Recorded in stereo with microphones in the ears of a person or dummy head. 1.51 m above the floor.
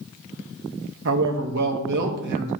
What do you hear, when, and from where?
1.1 s a man speaking: 70° right (ahead or behind), 1.2 m